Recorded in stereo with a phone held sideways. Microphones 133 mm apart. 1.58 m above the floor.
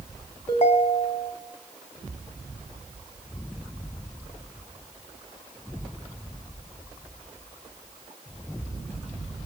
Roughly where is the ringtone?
Left.